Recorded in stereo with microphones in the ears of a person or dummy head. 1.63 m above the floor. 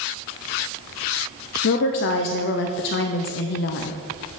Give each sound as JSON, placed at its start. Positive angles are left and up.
{"t": 1.6, "sound": "a woman speaking", "side_deg": 55, "distance_m": 0.6}